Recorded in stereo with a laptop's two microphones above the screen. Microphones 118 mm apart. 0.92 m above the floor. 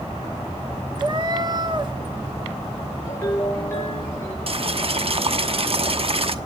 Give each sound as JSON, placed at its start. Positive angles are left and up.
{"t": 1.0, "sound": "a cat meowing", "side_deg": -40, "distance_m": 1.1}
{"t": 3.0, "sound": "a ringtone", "side_deg": 20, "distance_m": 6.5}
{"t": 4.5, "sound": "boiling", "side_deg": -55, "distance_m": 1.0}